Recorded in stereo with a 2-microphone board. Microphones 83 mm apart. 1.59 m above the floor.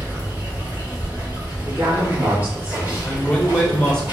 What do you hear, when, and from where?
0.0 s running water: 20° right (ahead or behind), 1.9 m
1.7 s a woman speaking: 20° right (ahead or behind), 2 m
3.0 s a man speaking: 10° left (ahead or behind), 1.2 m